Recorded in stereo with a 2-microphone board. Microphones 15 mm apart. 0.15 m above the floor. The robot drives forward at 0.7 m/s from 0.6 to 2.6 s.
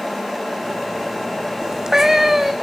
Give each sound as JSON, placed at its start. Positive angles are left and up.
{"t": 1.6, "sound": "a cat meowing", "side_deg": -45, "distance_m": 0.6}